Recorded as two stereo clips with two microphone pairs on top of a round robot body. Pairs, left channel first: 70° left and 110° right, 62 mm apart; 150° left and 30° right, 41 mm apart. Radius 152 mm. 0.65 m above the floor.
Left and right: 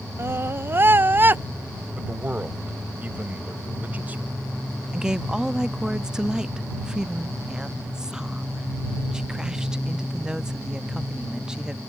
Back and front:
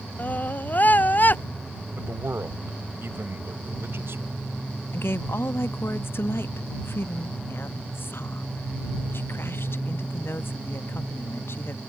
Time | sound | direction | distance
0.2 | a scream | 160° right | ?
1.9 | a man speaking | 45° right | ?
4.9 | a woman speaking | 160° left | ?